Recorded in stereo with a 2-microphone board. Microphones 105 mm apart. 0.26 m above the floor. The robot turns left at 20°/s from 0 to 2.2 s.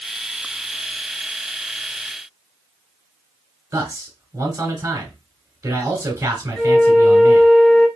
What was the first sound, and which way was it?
A man speaking, 25° right (ahead or behind).